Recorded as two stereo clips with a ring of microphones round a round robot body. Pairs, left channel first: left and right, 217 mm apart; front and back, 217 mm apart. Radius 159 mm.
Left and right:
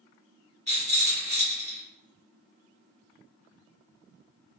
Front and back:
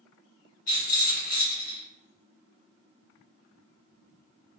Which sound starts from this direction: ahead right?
A rattle, at 0.7 s.